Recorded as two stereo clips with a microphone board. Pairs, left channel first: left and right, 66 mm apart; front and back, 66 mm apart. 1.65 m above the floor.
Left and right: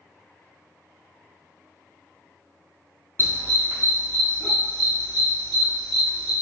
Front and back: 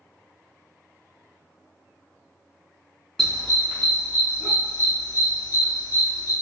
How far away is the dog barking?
About 1.3 m.